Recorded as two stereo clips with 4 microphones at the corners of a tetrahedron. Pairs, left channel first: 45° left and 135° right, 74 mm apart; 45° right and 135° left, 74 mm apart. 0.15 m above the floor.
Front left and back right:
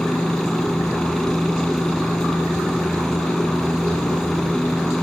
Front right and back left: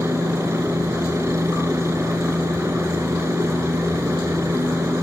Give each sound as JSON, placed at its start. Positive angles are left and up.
{"t": 0.0, "sound": "a helicopter", "azimuth_deg": 125}